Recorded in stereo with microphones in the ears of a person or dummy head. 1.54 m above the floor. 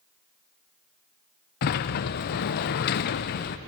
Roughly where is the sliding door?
Left.